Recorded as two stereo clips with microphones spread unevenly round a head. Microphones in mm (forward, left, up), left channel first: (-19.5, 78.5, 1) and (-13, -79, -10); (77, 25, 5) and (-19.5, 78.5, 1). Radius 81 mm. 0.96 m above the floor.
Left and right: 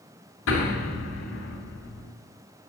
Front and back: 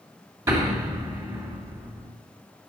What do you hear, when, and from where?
0.5 s an explosion: 90° left, 3 m